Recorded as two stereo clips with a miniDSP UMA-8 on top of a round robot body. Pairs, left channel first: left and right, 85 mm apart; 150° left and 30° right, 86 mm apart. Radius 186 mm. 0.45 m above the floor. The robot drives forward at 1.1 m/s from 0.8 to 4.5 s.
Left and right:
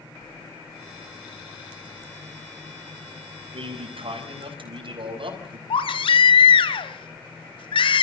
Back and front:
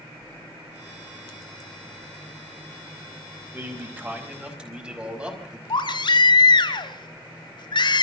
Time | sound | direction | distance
3.5 | a man speaking | 100° right | 5 m
5.7 | a baby crying | 115° left | 1.4 m